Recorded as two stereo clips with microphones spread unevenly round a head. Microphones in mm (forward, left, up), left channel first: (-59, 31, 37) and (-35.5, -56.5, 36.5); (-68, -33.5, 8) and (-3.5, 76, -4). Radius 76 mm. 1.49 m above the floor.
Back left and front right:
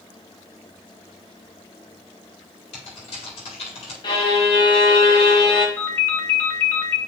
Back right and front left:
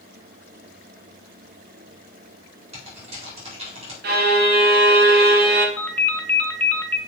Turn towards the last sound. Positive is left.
turn(degrees=170)